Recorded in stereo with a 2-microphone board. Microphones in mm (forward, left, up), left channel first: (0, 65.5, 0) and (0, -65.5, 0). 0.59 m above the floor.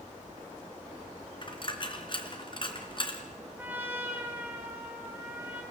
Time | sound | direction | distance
1.4 | a dropped coin | 40° left (ahead or behind) | 2.5 m
3.6 | a trumpet | 15° right (ahead or behind) | 5 m